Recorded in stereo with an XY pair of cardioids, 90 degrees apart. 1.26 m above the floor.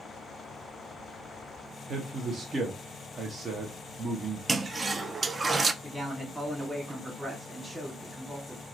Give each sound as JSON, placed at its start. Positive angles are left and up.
{"t": 1.9, "sound": "a man speaking", "azimuth_deg": -45, "distance_m": 1.2}
{"t": 4.5, "sound": "a toilet flushing", "azimuth_deg": -35, "distance_m": 0.5}
{"t": 5.8, "sound": "a man speaking", "azimuth_deg": -10, "distance_m": 2.5}